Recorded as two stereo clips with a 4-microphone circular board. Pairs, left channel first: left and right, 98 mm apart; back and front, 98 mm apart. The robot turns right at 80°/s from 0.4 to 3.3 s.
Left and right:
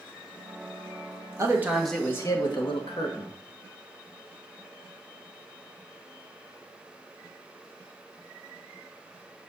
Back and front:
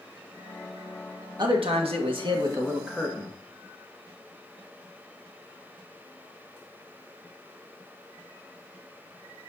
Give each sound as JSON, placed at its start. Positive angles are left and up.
{"t": 1.4, "sound": "a man speaking", "azimuth_deg": -35, "distance_m": 1.6}